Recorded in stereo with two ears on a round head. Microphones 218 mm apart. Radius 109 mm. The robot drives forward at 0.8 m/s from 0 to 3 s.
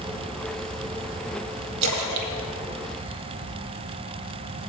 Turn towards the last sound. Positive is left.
turn(degrees=-65)  # may be behind; listen again after turning